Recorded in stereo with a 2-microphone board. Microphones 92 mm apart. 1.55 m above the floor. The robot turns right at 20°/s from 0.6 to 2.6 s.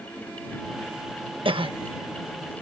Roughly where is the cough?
Right.